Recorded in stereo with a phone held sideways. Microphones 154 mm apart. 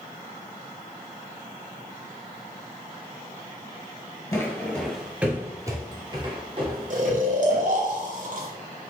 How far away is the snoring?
About 0.8 m.